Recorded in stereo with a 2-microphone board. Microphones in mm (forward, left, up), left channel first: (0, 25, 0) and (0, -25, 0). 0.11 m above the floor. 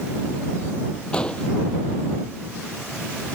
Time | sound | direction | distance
1.1 | an explosion | 20° left (ahead or behind) | ?